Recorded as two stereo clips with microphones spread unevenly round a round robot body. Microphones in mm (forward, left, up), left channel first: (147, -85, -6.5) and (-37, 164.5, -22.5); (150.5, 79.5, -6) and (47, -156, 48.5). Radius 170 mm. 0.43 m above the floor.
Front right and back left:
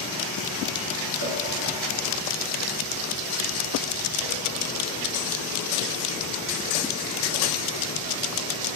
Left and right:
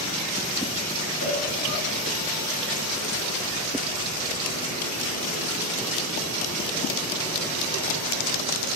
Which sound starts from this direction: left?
A cowbell, at 1.2 s.